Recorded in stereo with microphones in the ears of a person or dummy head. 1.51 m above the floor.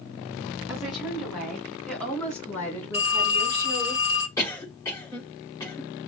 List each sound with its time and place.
0.7 s a woman speaking: 10° right (ahead or behind), 3.5 m; by 3.9 s 15° left (ahead or behind), 5 m
2.9 s a phone ringing: 30° left (ahead or behind), 1.9 m
4.4 s a cough: 15° left (ahead or behind), 4.5 m